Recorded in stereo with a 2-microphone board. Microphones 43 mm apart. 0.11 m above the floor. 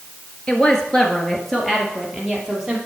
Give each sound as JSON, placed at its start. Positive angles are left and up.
{"t": 0.5, "sound": "a woman speaking", "side_deg": 20, "distance_m": 1.6}